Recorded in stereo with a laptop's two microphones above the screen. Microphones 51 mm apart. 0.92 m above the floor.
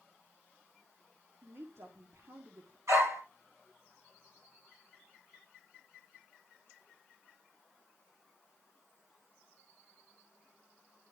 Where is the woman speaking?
55° right (ahead or behind), 1.7 m.